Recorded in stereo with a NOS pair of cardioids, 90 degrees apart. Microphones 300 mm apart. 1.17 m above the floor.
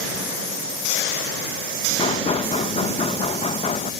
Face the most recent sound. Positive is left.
turn(degrees=20)